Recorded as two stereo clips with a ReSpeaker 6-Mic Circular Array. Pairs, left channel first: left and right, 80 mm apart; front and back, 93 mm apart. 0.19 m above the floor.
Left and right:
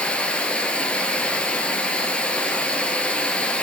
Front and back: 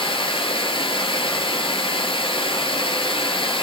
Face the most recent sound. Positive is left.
turn(degrees=15)